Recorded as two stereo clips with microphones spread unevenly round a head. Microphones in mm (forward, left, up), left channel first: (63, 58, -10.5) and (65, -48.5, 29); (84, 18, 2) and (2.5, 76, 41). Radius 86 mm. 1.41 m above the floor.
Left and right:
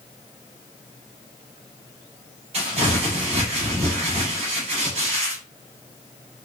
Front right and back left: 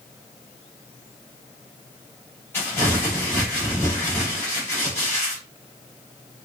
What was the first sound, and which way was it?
Crumpling, 120° right.